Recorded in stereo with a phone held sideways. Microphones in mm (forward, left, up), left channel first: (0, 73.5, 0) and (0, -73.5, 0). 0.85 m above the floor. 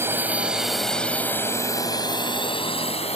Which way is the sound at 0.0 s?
15° right (ahead or behind).